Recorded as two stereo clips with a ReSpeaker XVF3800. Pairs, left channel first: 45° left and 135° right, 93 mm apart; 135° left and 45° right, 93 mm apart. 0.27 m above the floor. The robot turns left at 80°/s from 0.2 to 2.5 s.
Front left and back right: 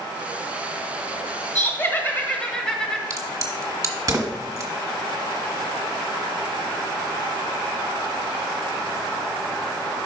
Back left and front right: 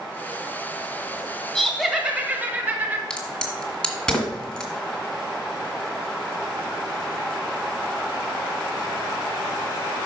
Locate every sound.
1.6 s laughter: 55° left, 1.2 m; by 3.0 s 20° right, 1.2 m
3.1 s a crack: 150° right, 1.5 m